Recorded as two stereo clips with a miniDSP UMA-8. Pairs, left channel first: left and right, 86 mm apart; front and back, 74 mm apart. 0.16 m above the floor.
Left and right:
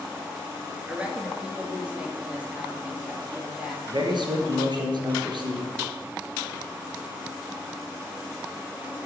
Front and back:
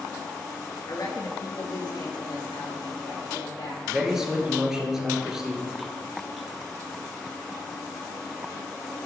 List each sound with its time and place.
0.9 s a woman speaking: 15° right, 1.7 m
3.9 s a man speaking: 95° right, 2 m